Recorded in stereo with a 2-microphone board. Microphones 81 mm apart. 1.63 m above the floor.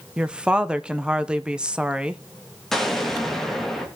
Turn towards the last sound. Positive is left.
turn(degrees=5)  # may be behind; listen again after turning